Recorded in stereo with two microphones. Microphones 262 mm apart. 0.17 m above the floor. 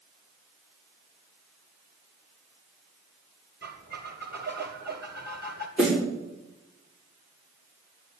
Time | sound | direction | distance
3.6 | a squeak | 40° right (ahead or behind) | 1.6 m
5.8 | a snare drum | centre (ahead or behind) | 7.5 m